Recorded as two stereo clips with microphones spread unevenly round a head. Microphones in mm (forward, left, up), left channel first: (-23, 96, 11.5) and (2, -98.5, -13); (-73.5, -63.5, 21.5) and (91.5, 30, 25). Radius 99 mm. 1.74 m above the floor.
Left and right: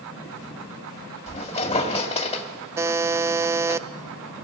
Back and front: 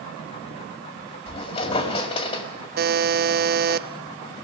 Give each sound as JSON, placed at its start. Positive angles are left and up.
{"t": 1.3, "sound": "a squeak", "azimuth_deg": 150, "distance_m": 1.9}
{"t": 2.8, "sound": "a buzzer", "azimuth_deg": -5, "distance_m": 0.5}